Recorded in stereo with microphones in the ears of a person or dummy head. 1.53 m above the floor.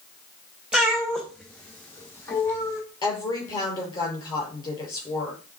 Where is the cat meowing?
5° right (ahead or behind), 1.0 m; by 2.8 s 15° left (ahead or behind), 1.9 m.